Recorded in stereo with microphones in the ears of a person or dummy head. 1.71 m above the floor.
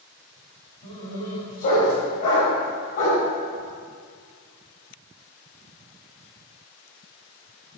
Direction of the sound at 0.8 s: 50° left (ahead or behind).